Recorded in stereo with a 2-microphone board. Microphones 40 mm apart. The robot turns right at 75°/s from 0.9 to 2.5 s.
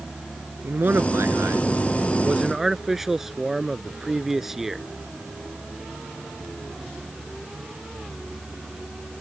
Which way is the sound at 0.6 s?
125° right.